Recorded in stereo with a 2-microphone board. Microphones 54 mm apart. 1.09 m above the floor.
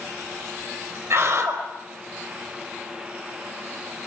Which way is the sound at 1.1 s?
40° right (ahead or behind).